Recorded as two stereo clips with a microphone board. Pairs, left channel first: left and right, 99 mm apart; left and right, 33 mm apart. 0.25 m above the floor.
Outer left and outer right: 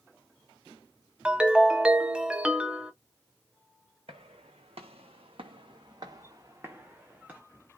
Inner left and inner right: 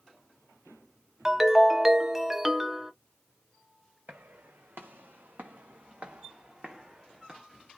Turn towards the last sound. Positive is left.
turn(degrees=-15)  # may be behind; listen again after turning